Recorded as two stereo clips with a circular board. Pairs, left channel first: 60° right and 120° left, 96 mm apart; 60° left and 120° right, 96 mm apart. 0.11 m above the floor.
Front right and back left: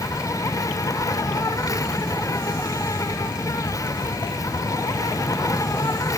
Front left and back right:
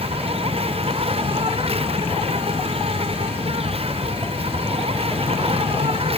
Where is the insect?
115° right.